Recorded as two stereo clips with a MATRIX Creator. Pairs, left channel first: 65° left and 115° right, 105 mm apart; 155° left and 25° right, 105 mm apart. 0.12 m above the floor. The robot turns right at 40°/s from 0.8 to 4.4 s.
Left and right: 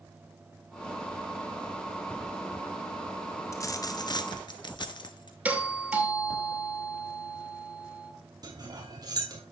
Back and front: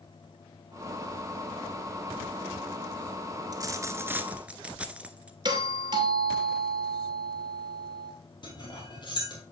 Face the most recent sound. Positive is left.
turn(degrees=-160)